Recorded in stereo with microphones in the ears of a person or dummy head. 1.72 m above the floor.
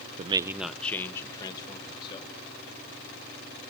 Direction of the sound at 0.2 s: 40° right (ahead or behind).